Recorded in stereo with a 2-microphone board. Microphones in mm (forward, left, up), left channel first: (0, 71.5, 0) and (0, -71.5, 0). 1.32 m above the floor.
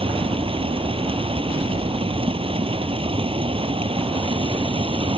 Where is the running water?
40° right (ahead or behind).